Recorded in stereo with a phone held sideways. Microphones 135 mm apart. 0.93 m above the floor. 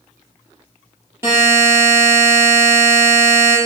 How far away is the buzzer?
About 6.5 m.